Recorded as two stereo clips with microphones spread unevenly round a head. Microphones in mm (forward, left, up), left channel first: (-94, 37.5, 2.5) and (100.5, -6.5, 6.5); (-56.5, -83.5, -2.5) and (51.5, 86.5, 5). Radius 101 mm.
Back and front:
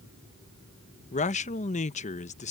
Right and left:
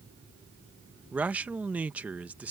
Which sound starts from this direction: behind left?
A man speaking, at 1.1 s.